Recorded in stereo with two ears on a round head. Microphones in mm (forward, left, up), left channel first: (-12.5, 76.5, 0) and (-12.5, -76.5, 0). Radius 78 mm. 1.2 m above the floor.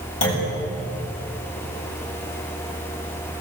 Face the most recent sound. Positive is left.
turn(degrees=70)  # may be behind; listen again after turning